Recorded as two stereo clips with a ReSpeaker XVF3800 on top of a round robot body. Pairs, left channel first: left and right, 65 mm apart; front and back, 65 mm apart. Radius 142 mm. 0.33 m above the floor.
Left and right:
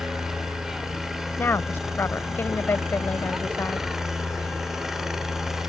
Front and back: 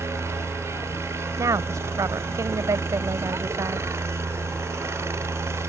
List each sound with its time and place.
0.0 s a helicopter: 170° right
1.4 s a woman speaking: 145° left